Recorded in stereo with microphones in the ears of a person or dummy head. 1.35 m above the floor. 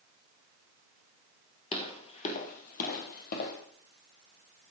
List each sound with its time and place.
1.7 s footsteps: 35° left (ahead or behind), 1.8 m; by 3.6 s 55° left (ahead or behind), 3 m